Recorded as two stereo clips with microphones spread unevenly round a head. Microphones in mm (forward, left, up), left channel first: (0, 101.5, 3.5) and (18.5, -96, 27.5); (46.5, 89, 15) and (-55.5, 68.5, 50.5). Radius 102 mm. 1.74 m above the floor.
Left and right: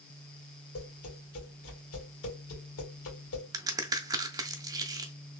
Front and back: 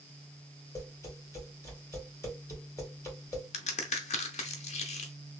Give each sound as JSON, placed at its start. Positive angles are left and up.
{"t": 0.8, "sound": "tapping", "azimuth_deg": 75, "distance_m": 2.0}
{"t": 3.5, "sound": "a crack", "azimuth_deg": -10, "distance_m": 0.5}